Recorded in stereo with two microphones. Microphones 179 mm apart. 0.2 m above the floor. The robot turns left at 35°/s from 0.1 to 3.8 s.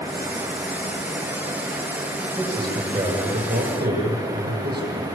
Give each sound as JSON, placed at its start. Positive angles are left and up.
{"t": 2.4, "sound": "a man speaking", "azimuth_deg": -10, "distance_m": 7.5}